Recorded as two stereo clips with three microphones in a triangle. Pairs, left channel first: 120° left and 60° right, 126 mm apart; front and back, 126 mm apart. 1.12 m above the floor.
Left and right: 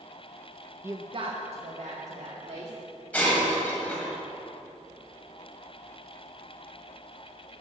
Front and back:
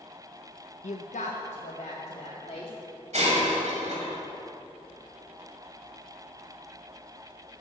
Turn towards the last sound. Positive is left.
turn(degrees=-165)